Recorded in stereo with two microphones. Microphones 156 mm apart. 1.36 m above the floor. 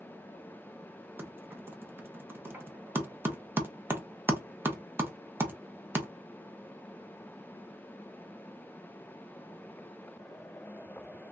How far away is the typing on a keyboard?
About 0.6 m.